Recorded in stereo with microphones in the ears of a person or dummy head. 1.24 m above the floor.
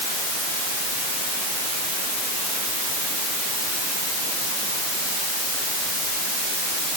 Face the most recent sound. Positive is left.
No sound to turn to.